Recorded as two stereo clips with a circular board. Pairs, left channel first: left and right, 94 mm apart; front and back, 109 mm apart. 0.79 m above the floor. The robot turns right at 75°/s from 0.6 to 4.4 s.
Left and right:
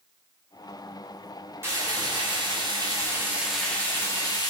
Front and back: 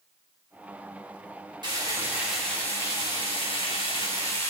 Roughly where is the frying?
Behind right.